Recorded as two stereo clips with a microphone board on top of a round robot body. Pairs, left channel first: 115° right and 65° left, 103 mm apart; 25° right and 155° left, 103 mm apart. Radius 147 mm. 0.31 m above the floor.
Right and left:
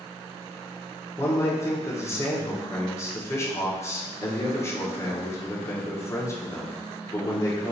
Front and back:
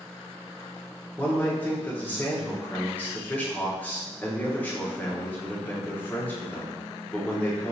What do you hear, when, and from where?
1.2 s a man speaking: 80° right, 0.9 m